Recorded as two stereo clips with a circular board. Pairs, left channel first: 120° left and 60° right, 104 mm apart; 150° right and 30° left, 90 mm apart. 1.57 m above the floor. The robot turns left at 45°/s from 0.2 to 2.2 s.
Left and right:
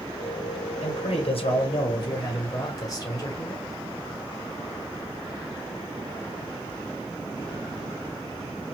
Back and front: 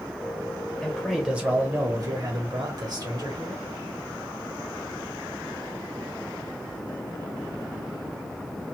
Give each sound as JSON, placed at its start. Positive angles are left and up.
{"t": 0.8, "sound": "a man speaking", "azimuth_deg": 130, "distance_m": 1.4}